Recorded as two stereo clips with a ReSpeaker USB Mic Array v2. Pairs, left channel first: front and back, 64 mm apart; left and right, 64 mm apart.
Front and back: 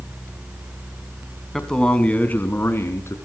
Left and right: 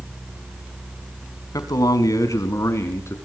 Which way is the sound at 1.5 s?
85° left.